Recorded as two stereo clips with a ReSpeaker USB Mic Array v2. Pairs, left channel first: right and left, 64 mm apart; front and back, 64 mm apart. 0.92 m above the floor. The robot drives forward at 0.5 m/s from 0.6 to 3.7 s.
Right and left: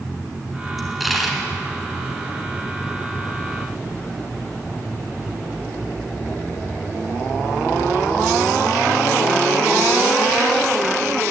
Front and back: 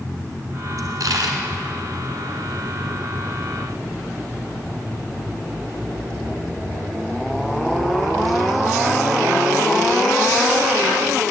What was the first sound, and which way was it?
A dropped coin, straight behind.